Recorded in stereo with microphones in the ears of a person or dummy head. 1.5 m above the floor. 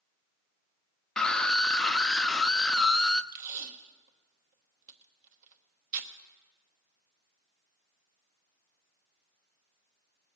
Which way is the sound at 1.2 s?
Centre (ahead or behind).